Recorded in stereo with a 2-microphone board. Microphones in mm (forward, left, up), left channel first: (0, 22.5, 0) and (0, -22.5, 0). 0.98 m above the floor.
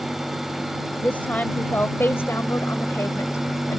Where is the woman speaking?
35° left (ahead or behind); by 3.8 s 85° left.